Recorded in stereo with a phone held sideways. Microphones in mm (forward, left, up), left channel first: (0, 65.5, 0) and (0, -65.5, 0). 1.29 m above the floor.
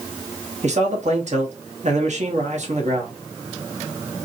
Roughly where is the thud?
I don't hear a thud.